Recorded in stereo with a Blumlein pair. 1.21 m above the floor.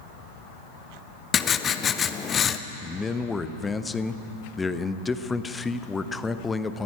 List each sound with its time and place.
1.3 s writing: 20° left, 0.7 m
2.8 s a man speaking: 10° left, 0.8 m